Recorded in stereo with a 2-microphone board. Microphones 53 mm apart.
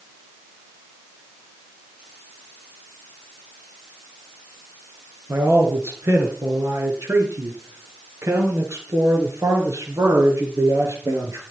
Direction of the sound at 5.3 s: 55° right (ahead or behind).